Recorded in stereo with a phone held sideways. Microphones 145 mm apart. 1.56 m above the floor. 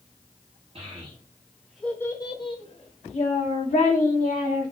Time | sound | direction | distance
0.8 | a child speaking | 45° right (ahead or behind) | 1.2 m